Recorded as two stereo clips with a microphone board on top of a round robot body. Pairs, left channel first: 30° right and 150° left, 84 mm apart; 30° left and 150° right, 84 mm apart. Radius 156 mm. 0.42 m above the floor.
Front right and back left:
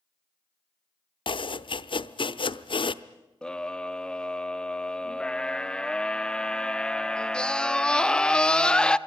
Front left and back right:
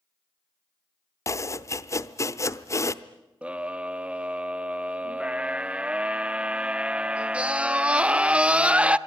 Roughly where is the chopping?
Ahead right.